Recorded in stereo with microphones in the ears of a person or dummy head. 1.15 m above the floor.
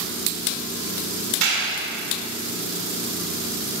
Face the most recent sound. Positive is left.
turn(degrees=-85)